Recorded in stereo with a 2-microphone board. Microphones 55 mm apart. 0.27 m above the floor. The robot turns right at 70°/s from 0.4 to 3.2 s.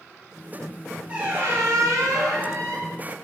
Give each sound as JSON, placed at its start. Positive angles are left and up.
{"t": 1.1, "sound": "a squeak", "azimuth_deg": -160, "distance_m": 1.6}